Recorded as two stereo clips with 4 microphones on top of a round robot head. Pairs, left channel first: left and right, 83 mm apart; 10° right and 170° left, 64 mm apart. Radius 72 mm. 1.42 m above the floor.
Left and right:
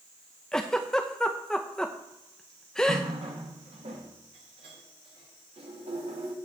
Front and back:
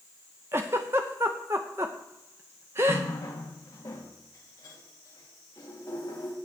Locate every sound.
0.5 s a giggle: 165° left, 0.6 m
2.9 s a running tap: 65° right, 1.7 m